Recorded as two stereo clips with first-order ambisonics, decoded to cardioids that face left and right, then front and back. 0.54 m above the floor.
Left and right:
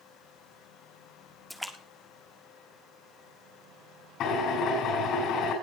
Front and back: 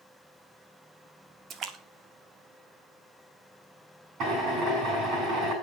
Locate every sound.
1.5 s a splash: straight behind, 1.5 m
4.2 s a drill: 135° left, 6 m